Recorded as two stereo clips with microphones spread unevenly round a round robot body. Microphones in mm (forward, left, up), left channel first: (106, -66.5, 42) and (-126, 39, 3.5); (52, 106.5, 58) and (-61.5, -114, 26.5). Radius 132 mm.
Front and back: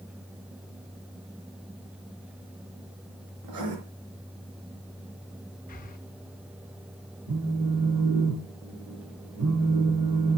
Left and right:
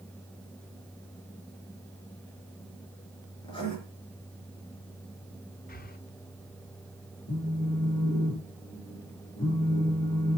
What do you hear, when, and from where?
3.4 s writing: 135° left, 4.5 m
5.7 s breathing: 25° left, 1.2 m
7.3 s a phone buzzing: 140° left, 7.5 m